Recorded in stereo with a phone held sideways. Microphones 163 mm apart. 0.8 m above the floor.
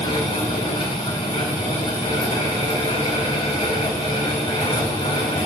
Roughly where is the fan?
Left.